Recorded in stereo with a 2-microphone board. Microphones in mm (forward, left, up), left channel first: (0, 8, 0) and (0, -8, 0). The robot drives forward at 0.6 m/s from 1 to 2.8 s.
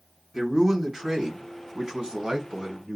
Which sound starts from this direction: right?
A man speaking, at 0.3 s.